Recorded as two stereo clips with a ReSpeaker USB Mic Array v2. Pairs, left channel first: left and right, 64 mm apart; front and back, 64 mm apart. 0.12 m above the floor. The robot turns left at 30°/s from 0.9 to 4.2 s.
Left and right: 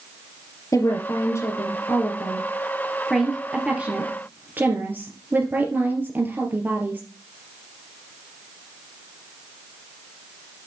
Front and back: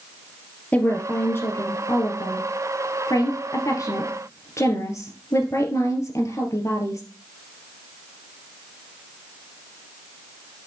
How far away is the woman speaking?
About 2.5 m.